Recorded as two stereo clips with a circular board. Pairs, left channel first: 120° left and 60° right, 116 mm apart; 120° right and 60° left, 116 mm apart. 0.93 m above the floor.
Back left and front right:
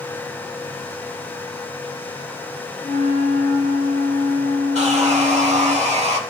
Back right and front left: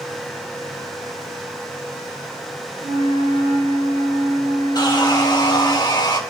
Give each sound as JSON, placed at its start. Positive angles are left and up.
{"t": 2.8, "sound": "a flute", "azimuth_deg": 85, "distance_m": 1.5}
{"t": 4.8, "sound": "sawing", "azimuth_deg": -65, "distance_m": 1.2}